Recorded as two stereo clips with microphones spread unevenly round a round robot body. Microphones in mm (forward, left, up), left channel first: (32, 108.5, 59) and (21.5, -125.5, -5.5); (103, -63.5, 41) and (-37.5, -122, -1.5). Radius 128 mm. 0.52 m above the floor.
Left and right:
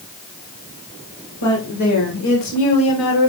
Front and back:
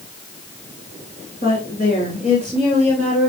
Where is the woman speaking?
75° left, 3 m; by 3.3 s 120° left, 2 m.